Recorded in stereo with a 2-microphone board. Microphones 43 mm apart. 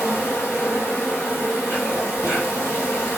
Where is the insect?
85° left, 1.5 m.